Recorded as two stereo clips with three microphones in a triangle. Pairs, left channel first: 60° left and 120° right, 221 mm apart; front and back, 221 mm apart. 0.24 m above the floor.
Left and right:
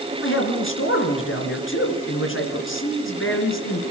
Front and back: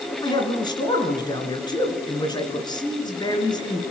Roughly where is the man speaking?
Left.